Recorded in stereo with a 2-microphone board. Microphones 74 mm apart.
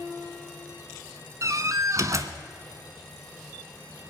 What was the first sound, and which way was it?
A door slam, 45° right (ahead or behind).